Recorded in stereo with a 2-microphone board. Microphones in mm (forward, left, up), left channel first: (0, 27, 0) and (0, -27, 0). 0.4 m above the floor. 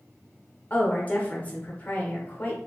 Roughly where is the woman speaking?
Left.